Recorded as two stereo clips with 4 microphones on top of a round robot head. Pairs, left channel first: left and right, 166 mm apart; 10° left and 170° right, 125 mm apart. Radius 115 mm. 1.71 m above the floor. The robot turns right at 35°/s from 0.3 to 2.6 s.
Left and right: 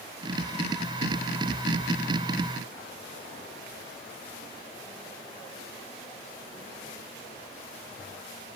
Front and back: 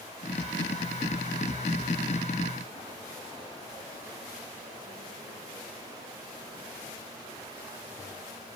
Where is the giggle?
I don't hear a giggle.